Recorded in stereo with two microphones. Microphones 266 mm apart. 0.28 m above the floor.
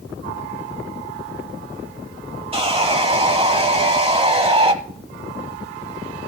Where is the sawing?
20° right (ahead or behind), 1.1 m.